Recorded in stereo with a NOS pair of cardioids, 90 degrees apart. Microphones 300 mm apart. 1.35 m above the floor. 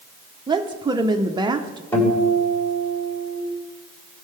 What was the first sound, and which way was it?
A woman speaking, 15° right.